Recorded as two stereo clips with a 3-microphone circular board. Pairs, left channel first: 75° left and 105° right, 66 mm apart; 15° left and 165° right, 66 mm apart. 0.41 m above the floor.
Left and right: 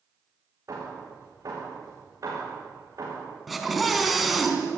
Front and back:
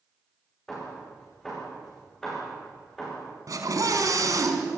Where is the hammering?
65° right, 9.5 m.